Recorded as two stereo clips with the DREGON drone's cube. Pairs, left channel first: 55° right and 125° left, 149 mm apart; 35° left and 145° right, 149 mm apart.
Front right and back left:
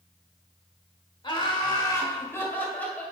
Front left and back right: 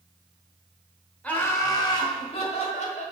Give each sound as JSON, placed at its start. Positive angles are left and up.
{"t": 1.2, "sound": "laughter", "azimuth_deg": -40, "distance_m": 1.3}